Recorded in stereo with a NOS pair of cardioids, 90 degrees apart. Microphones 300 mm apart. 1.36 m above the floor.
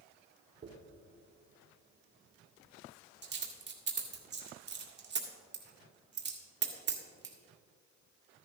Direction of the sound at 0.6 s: 35° right.